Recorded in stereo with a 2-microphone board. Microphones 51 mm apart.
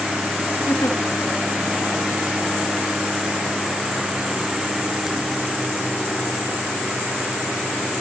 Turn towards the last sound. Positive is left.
turn(degrees=80)